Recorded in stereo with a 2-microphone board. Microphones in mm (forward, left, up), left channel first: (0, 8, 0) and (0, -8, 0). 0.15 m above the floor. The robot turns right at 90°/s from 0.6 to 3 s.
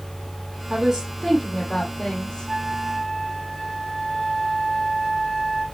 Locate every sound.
0.7 s a woman speaking: 60° right, 5.5 m; by 2.5 s 100° left, 5.5 m
2.5 s a flute: 10° right, 2.5 m; by 5.7 s 40° left, 2.5 m